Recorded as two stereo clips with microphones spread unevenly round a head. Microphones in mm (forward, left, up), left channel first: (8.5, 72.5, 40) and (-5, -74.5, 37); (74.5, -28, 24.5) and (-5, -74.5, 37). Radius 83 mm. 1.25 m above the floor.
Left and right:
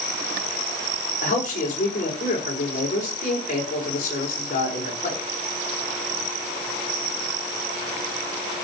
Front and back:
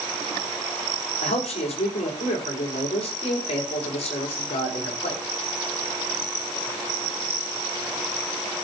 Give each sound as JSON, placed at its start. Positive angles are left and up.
{"t": 1.2, "sound": "a man speaking", "azimuth_deg": 45, "distance_m": 4.5}